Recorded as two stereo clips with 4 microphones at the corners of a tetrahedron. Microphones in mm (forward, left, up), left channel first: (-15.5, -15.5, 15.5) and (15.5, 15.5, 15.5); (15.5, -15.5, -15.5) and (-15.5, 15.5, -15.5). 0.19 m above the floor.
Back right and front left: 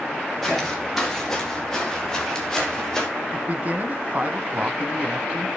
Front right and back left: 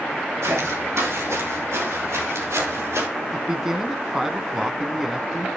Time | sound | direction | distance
0.4 | footsteps | 140° left | 6 m
3.3 | a man speaking | 60° left | 1.2 m